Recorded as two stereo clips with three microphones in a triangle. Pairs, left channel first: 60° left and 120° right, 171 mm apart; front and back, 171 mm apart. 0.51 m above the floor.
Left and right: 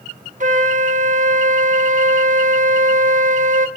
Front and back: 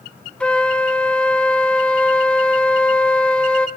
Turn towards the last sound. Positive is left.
turn(degrees=-80)